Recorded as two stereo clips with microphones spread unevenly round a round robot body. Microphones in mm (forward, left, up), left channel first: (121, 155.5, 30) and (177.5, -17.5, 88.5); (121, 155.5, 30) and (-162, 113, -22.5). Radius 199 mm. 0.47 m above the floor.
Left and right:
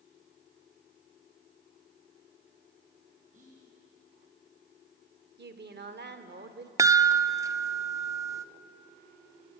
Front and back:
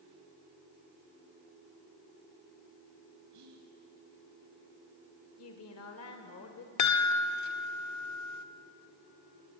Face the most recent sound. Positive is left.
turn(degrees=15)